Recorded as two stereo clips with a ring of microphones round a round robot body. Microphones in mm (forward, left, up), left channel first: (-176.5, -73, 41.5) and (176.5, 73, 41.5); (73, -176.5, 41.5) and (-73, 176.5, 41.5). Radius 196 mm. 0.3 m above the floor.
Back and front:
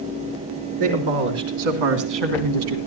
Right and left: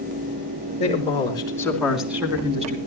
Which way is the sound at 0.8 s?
5° left.